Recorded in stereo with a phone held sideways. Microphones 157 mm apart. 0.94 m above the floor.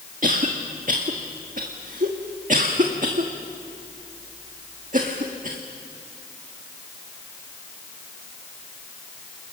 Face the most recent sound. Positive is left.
turn(degrees=-60)  # may be behind; listen again after turning